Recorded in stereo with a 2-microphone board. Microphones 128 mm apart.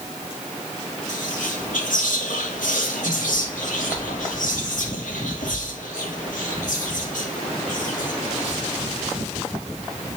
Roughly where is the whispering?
Left.